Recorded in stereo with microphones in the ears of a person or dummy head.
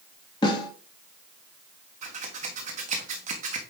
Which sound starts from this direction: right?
Scissors, at 2.0 s.